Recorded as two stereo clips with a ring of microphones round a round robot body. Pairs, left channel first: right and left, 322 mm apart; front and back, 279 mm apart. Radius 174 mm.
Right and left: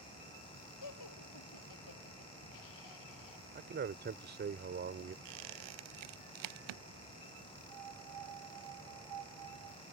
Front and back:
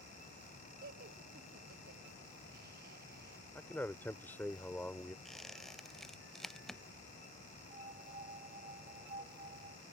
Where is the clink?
No clink in this recording.